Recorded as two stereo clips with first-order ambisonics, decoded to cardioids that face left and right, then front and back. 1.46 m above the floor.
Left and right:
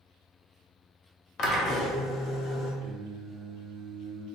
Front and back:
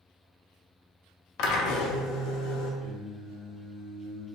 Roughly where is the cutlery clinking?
I don't hear cutlery clinking.